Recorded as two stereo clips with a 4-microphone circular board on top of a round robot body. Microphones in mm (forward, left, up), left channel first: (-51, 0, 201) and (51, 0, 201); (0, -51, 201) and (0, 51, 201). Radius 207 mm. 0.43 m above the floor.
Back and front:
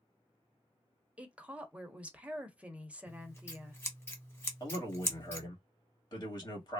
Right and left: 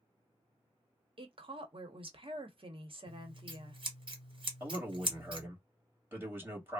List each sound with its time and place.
1.2 s a woman speaking: 75° left, 1.1 m
3.1 s scissors: 115° left, 1.6 m
4.6 s a man speaking: 150° left, 1.7 m